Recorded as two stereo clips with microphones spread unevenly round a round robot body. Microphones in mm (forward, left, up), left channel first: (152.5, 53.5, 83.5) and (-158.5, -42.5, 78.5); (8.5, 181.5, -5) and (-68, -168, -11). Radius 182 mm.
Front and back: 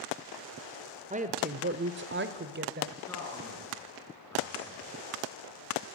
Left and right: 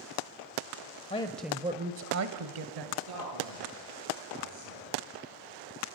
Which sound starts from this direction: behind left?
A woman speaking, at 1.1 s.